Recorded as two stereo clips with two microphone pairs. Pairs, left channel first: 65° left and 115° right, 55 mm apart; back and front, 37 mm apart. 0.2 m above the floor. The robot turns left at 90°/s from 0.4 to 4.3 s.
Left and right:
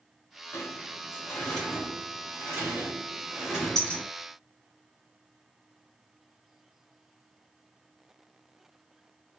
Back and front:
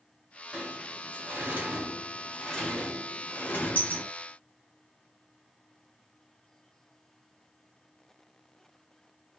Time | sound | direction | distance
0.5 | a sliding door | 80° left | 3 m